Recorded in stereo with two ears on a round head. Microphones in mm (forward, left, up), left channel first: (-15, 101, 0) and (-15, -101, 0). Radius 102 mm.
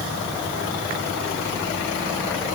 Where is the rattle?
No rattle in this recording.